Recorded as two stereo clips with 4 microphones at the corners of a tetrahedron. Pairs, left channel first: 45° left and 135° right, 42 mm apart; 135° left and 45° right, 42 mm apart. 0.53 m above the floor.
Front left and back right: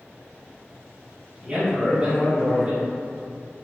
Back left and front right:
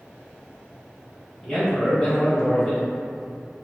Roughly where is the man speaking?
Behind.